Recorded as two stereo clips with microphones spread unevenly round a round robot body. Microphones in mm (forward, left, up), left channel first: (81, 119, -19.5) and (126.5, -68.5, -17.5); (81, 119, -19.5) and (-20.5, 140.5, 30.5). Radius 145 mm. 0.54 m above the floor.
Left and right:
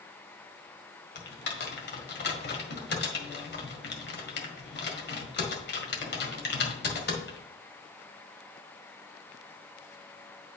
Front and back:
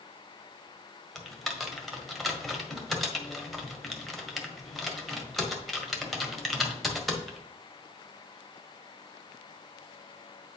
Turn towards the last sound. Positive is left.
turn(degrees=70)